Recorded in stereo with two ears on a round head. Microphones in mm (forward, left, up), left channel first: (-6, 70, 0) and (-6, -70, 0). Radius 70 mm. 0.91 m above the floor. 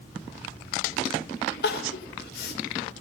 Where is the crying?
65° left (ahead or behind), 3.5 m.